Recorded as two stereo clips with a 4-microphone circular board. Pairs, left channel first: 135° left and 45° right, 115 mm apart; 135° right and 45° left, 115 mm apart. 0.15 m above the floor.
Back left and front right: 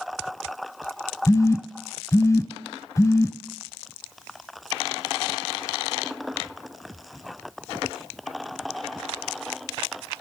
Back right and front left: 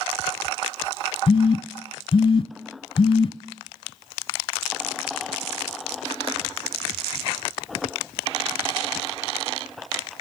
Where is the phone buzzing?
170° right, 0.8 m.